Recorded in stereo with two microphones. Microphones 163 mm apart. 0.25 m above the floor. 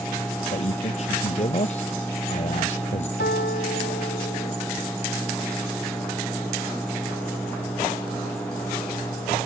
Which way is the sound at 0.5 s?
45° left (ahead or behind).